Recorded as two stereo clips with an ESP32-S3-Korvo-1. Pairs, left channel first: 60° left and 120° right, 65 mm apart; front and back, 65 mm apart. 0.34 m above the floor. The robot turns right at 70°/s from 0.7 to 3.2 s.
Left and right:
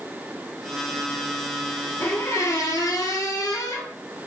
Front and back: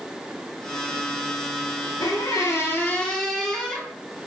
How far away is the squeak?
About 0.7 m.